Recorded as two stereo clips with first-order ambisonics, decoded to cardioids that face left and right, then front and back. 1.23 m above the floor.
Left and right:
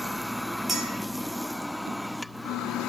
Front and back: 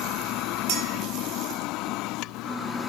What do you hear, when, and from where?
0.7 s a clink: 170° right, 0.7 m